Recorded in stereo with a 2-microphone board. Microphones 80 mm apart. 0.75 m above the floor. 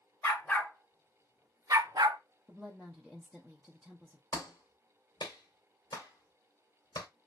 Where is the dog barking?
30° left (ahead or behind), 1.2 m; by 2.2 s 70° right (ahead or behind), 0.9 m.